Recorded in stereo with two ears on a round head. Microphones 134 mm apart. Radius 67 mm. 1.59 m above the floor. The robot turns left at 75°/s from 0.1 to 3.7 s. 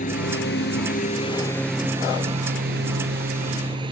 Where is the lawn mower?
125° left; by 3.9 s 145° right.